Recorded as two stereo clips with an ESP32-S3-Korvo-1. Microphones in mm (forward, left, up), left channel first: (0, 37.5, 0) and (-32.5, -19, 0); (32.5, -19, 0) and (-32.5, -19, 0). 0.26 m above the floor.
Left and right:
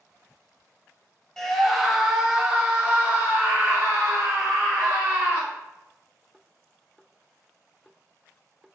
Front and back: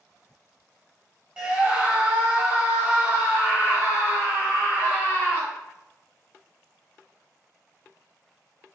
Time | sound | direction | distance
1.4 | a scream | 130° left | 1.2 m